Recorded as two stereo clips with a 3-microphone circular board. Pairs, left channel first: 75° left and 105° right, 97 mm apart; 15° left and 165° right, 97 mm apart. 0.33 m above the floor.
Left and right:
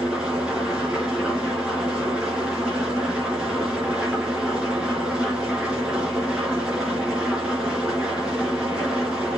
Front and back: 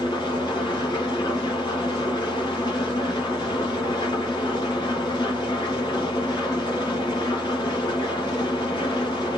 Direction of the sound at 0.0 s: 25° right.